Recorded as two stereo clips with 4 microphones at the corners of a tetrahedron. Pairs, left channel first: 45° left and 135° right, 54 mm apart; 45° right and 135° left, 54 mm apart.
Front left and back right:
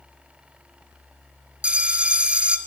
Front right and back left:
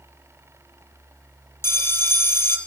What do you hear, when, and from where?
1.6 s a bell: 70° right, 0.7 m